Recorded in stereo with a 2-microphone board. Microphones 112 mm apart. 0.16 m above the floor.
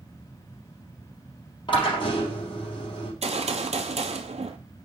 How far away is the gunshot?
About 0.8 m.